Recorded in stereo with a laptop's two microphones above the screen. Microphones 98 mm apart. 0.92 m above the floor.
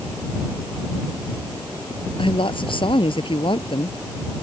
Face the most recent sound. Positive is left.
turn(degrees=60)  # may be behind; listen again after turning